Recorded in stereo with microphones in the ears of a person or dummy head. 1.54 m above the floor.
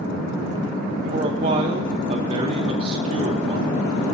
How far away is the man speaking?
About 0.8 m.